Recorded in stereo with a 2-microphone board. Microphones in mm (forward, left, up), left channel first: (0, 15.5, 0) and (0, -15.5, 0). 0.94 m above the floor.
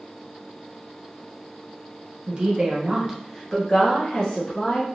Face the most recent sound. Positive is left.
turn(degrees=30)  # may be behind; listen again after turning